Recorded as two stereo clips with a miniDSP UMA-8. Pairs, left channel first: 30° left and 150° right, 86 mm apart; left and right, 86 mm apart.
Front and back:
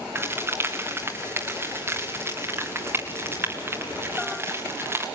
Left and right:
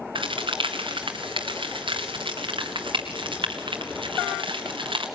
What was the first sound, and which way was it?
A crack, 90° right.